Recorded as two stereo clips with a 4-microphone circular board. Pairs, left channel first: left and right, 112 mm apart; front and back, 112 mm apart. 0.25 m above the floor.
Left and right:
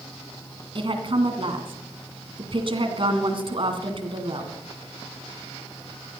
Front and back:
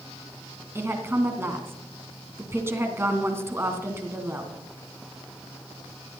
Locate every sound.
0.8 s a woman speaking: 115° right, 2.5 m